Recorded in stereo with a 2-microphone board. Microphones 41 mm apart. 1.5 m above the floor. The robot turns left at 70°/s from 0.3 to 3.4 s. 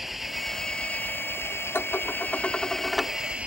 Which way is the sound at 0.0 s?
175° right.